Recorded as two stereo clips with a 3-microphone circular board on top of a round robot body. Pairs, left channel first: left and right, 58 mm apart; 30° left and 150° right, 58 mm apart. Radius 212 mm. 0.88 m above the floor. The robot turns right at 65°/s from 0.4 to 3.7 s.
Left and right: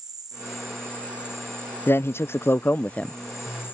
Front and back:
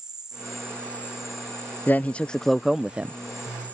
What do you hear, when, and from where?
0.0 s an insect: 70° right; by 3.7 s 145° left
1.9 s a man speaking: 70° left; by 3.2 s 155° left